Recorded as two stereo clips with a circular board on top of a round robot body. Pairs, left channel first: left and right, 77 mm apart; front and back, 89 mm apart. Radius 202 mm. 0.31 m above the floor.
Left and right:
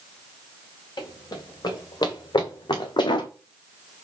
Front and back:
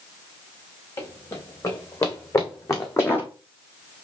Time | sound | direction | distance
1.0 | running footsteps | 55° left | 4 m